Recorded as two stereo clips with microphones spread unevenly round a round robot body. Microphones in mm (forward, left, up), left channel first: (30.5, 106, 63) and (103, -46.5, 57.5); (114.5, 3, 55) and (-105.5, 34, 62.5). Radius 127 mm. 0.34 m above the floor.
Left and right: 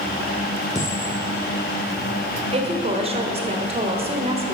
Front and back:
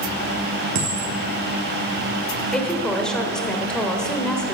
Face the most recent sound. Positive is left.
turn(degrees=-90)